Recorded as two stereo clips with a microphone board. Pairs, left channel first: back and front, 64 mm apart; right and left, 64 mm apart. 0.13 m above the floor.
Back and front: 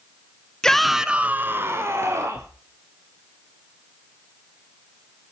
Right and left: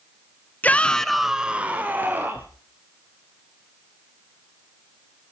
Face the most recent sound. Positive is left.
turn(degrees=40)